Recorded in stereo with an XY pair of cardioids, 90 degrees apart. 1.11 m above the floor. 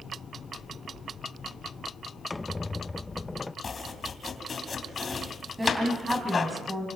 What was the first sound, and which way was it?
A squeak, 20° left.